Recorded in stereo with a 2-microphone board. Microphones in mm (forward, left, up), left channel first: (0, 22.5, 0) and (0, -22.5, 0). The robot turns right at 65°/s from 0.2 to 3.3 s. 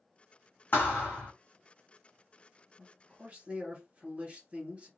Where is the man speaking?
175° left, 2 m; by 4.9 s 150° right, 2 m.